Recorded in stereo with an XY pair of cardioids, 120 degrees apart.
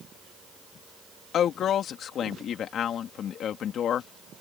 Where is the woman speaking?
55° left.